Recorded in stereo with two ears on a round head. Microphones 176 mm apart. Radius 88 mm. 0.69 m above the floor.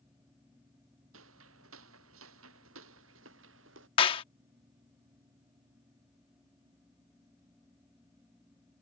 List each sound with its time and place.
1.1 s footsteps: 85° right; by 3.9 s 75° right (ahead or behind)
4.0 s a clap: 30° left (ahead or behind)